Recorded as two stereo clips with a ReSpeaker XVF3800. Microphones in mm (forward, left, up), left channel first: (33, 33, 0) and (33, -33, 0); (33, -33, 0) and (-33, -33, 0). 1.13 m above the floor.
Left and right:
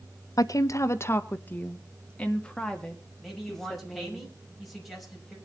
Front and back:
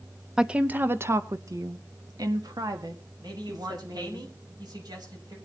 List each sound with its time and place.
0.4 s a woman speaking: 100° left, 0.8 m; by 4.2 s 175° left, 3 m
3.2 s a man speaking: straight behind, 6 m